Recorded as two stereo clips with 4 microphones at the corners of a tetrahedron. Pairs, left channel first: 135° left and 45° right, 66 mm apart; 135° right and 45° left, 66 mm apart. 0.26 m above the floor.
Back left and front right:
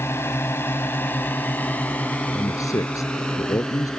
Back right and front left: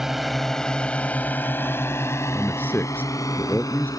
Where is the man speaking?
165° left.